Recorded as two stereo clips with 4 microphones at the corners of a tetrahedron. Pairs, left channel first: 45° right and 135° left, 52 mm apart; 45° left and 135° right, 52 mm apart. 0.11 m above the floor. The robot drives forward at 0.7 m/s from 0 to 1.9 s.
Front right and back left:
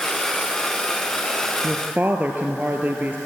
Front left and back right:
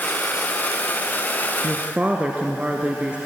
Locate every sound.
1.6 s a woman speaking: 175° left, 1.3 m